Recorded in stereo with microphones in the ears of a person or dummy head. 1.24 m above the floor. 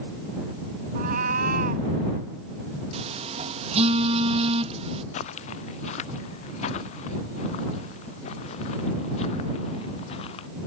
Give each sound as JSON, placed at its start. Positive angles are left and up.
{"t": 0.9, "sound": "a cat meowing", "side_deg": -45}
{"t": 2.9, "sound": "a phone buzzing", "side_deg": -35}
{"t": 5.1, "sound": "footsteps", "side_deg": 45}